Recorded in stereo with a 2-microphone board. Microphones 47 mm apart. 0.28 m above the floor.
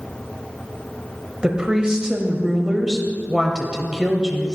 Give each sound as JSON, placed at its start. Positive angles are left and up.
{"t": 1.4, "sound": "a woman speaking", "side_deg": -15, "distance_m": 1.0}